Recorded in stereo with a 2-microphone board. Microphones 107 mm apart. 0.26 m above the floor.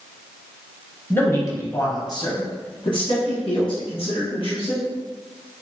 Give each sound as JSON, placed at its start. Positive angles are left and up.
{"t": 1.1, "sound": "a man speaking", "side_deg": 20, "distance_m": 1.0}